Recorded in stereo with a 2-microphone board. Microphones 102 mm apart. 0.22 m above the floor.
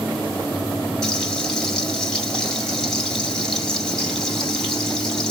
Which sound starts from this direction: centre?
Frying, at 1.0 s.